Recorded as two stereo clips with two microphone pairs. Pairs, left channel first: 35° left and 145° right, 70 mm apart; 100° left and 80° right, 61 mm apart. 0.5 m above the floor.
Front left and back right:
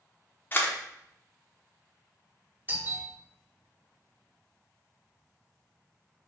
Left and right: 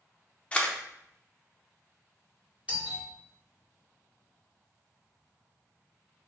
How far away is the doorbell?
About 1.8 m.